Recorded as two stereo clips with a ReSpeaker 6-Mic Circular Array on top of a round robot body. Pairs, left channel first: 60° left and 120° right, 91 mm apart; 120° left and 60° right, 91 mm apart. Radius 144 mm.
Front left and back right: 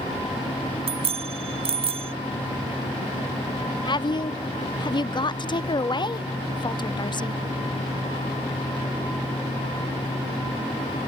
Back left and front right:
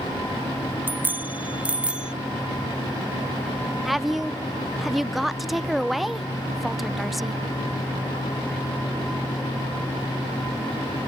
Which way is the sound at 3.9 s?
30° left.